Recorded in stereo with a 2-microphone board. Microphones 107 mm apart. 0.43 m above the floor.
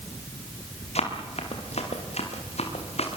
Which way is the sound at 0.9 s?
80° left.